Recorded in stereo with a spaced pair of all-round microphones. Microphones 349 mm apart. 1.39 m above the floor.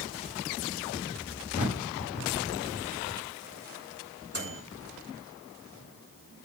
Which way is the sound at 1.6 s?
85° left.